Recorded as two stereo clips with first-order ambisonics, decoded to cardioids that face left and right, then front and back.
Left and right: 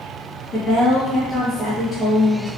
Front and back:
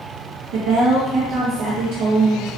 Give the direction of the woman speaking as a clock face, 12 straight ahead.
7 o'clock.